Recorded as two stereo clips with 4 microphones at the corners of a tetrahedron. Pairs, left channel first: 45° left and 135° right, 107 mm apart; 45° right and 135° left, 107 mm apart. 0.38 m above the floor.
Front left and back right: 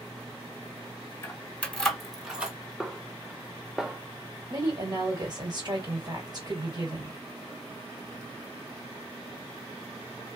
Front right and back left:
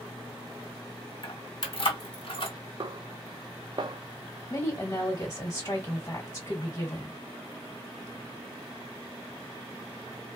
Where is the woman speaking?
100° right, 1.9 m.